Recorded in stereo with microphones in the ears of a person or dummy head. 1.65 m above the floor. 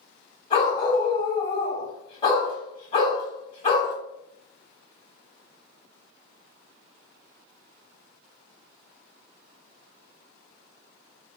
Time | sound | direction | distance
0.5 | a dog barking | 30° left (ahead or behind) | 1.9 m